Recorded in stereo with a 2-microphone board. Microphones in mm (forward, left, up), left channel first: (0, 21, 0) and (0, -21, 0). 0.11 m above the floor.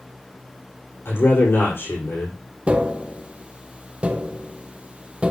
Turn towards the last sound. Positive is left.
turn(degrees=-25)  # may be behind; listen again after turning